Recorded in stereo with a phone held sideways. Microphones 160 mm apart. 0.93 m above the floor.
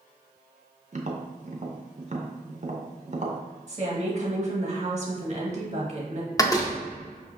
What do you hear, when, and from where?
0.9 s tapping: 50° right (ahead or behind), 0.5 m
3.7 s a woman speaking: 45° right (ahead or behind), 1.0 m
6.4 s a door slam: 20° left (ahead or behind), 0.5 m